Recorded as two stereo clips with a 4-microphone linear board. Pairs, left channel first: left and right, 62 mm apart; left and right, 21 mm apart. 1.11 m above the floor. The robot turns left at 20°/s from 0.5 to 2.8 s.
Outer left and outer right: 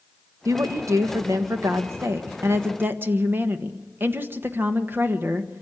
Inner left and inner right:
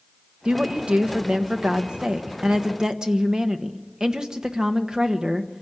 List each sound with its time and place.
0.5 s a woman speaking: 90° right, 1.2 m; by 5.6 s 140° right, 1.2 m